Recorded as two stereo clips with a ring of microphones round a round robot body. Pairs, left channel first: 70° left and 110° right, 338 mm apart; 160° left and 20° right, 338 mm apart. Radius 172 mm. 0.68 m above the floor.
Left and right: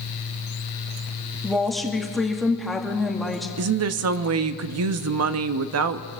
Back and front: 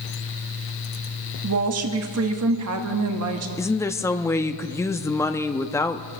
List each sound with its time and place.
1.4 s a woman speaking: 20° right, 1.3 m
3.6 s a woman speaking: 125° right, 0.7 m